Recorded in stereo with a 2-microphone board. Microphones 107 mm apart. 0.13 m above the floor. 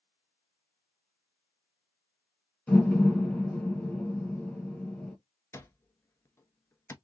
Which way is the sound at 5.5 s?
25° left (ahead or behind).